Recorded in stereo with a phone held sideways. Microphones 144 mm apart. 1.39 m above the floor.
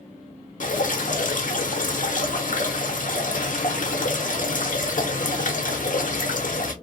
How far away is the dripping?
About 0.7 m.